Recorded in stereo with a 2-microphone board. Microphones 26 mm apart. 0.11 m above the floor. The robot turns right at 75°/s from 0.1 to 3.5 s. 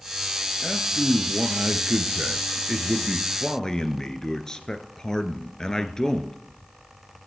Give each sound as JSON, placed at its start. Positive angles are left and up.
{"t": 0.6, "sound": "a man speaking", "azimuth_deg": -175, "distance_m": 1.7}